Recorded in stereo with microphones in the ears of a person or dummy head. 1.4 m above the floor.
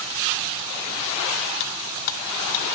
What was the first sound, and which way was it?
Cutlery clinking, 65° left (ahead or behind).